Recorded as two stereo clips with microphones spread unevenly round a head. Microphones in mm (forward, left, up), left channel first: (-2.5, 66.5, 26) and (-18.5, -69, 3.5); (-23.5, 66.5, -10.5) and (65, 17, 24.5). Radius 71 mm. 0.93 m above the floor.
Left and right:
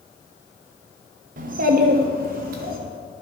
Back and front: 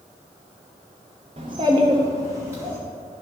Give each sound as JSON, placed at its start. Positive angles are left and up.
{"t": 1.4, "sound": "a child speaking", "azimuth_deg": -85, "distance_m": 0.8}